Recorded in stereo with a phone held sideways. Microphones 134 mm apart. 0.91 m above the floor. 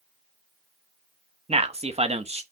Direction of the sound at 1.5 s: 50° right (ahead or behind).